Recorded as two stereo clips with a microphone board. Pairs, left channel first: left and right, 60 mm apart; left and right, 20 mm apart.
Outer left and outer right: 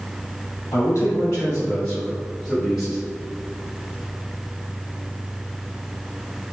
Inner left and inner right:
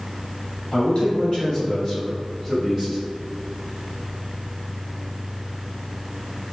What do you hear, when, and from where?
0.7 s a man speaking: 50° left (ahead or behind), 1.6 m; by 3.0 s 5° right (ahead or behind), 2.5 m